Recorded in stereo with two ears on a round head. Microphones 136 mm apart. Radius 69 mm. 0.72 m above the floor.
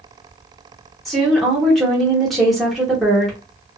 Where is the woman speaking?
Centre (ahead or behind), 1.0 m.